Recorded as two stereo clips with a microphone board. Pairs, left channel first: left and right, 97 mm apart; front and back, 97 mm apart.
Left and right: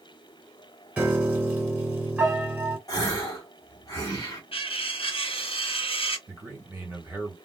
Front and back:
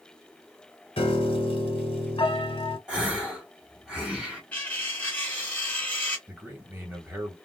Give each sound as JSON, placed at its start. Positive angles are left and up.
{"t": 1.0, "sound": "a piano", "azimuth_deg": -15, "distance_m": 0.8}
{"t": 2.9, "sound": "a gasp", "azimuth_deg": 100, "distance_m": 1.3}
{"t": 4.5, "sound": "cutlery clinking", "azimuth_deg": 75, "distance_m": 1.3}
{"t": 6.3, "sound": "a man speaking", "azimuth_deg": -135, "distance_m": 1.3}